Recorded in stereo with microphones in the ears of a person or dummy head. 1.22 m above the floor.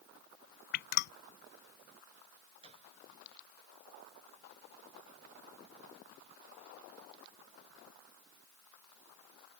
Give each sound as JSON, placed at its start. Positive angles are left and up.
{"t": 0.7, "sound": "dripping", "side_deg": 65}
{"t": 2.6, "sound": "a gunshot", "side_deg": -35}